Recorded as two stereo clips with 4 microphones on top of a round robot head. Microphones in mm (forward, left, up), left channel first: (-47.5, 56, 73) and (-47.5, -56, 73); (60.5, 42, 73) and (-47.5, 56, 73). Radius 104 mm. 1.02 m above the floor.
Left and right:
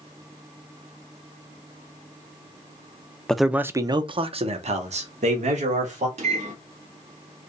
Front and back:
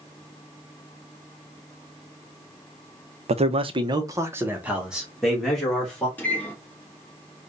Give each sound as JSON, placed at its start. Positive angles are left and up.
{"t": 3.3, "sound": "a man speaking", "azimuth_deg": 175, "distance_m": 0.7}
{"t": 6.2, "sound": "a microwave", "azimuth_deg": -85, "distance_m": 1.4}